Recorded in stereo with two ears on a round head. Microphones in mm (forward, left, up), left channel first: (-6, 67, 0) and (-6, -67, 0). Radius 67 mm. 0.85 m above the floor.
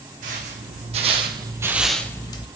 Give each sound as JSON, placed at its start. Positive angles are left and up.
{"t": 0.2, "sound": "footsteps", "side_deg": -55, "distance_m": 2.0}